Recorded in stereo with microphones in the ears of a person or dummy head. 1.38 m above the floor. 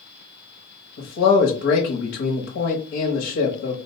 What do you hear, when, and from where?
1.0 s a man speaking: 60° left (ahead or behind), 0.8 m